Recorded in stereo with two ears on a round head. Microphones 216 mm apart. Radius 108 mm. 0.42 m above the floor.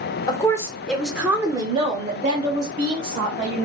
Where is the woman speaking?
20° left (ahead or behind), 0.9 m; by 3.7 s 35° right (ahead or behind), 1.6 m.